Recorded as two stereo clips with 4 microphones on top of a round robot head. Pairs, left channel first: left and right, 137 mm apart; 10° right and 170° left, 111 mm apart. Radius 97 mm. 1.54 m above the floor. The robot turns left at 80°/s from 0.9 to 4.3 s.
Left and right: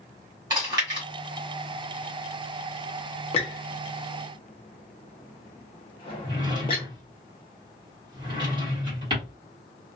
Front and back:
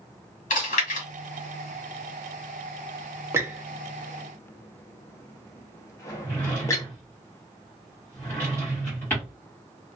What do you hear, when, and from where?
0.5 s chewing: 20° right, 1.3 m; by 1.1 s 30° right, 1.3 m
3.3 s a squeak: 115° left, 0.6 m; by 6.8 s 40° left, 0.6 m
6.2 s a drawer: 75° right, 1.2 m